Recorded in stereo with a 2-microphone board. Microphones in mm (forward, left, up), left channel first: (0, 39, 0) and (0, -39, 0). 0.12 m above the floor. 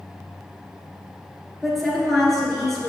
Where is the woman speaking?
5° left (ahead or behind), 2.0 m.